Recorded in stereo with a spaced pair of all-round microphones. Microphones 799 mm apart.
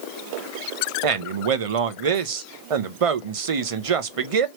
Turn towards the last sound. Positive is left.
turn(degrees=-45)  # may be behind; listen again after turning